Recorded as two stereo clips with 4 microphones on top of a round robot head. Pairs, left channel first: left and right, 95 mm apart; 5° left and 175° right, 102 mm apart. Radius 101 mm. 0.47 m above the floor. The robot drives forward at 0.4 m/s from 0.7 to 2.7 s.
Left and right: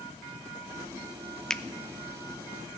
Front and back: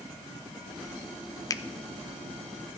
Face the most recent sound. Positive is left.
turn(degrees=165)